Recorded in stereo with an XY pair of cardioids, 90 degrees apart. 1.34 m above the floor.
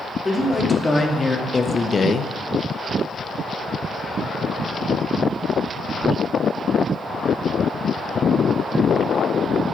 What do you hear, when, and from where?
0.2 s a man speaking: 20° left, 3 m; by 2.3 s 60° left, 0.6 m